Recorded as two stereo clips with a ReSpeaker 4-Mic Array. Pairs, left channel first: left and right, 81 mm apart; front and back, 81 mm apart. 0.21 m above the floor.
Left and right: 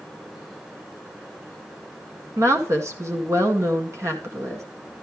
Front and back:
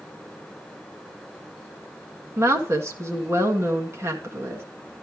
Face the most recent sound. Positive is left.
turn(degrees=-135)